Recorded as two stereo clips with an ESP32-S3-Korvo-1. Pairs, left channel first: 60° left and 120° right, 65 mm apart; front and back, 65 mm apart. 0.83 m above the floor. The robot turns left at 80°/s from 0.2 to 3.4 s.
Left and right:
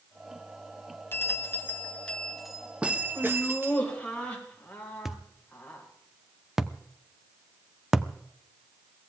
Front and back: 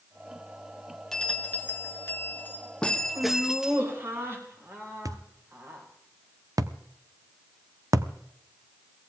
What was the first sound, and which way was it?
A bell, 75° left.